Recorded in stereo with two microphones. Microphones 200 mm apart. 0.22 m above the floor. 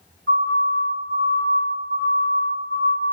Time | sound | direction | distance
0.3 | a siren | 70° right (ahead or behind) | 4.5 m